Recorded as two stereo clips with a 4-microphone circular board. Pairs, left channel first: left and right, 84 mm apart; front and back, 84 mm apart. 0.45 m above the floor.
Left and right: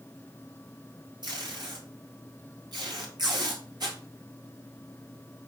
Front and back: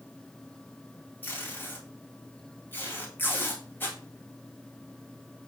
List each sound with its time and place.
1.2 s tape being pulled: 65° right, 2.5 m